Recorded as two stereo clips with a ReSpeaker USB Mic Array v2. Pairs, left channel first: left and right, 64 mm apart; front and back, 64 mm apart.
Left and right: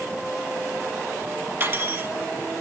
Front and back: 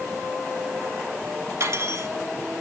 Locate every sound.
1.6 s cutlery clinking: 150° right, 1.8 m